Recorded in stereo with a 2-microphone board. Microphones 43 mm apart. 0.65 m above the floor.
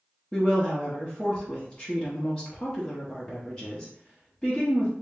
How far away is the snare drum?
No snare drum in this recording.